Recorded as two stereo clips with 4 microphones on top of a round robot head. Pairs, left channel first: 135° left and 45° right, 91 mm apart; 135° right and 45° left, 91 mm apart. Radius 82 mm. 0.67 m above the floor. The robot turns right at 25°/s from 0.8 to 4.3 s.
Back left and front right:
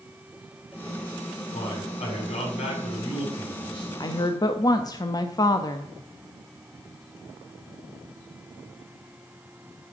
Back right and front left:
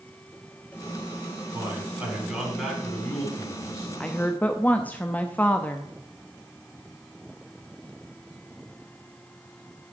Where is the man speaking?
115° left, 5.5 m; by 3.9 s 170° left, 5.5 m.